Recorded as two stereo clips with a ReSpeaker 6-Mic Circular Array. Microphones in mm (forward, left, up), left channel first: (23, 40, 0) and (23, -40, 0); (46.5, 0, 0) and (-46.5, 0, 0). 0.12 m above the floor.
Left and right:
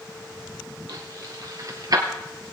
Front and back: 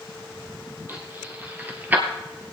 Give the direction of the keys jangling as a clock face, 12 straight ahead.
4 o'clock.